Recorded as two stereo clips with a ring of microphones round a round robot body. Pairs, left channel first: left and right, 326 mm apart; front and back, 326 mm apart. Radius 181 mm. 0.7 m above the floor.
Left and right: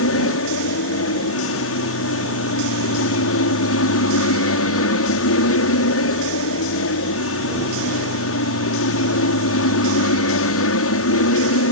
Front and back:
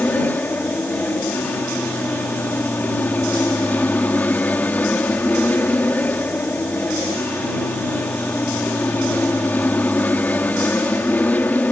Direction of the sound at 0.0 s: 85° left.